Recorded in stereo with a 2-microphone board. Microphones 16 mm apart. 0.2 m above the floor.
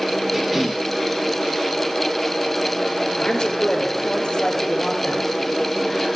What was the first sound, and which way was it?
A cough, 20° right (ahead or behind).